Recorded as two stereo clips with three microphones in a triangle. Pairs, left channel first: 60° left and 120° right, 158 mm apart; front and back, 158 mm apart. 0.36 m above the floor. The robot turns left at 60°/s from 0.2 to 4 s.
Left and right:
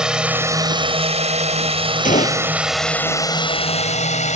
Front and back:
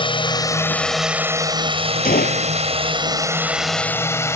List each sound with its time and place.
0.0 s a drone: 35° right; by 4.4 s 65° left
2.0 s a gunshot: 25° left; by 2.5 s straight ahead